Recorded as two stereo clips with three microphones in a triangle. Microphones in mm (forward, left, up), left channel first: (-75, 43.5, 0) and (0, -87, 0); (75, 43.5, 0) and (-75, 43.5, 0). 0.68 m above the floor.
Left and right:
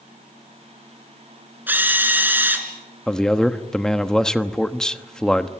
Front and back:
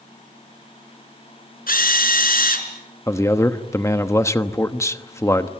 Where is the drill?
20° left, 3.5 m.